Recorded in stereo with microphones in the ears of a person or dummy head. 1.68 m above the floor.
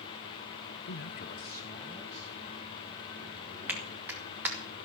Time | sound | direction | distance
0.9 | a man speaking | 45° left (ahead or behind) | 0.7 m
3.7 | a clap | 5° right (ahead or behind) | 2.5 m